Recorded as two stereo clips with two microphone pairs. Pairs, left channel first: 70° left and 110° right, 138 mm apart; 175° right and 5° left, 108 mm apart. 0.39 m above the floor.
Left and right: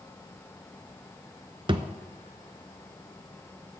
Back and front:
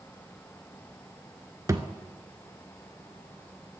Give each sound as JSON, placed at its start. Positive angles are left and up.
{"t": 1.7, "sound": "a thud", "azimuth_deg": -55, "distance_m": 0.6}